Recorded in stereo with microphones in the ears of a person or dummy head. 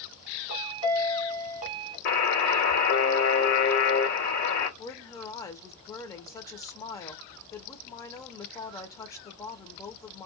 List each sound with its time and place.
0.5 s a chime: 25° right (ahead or behind), 0.9 m
2.0 s a buzzer: 55° left (ahead or behind), 1.2 m
4.8 s a woman speaking: 15° left (ahead or behind), 0.6 m